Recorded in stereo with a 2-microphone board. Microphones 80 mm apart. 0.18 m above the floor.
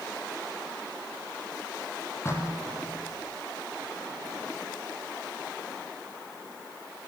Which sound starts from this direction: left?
Knocking, at 2.2 s.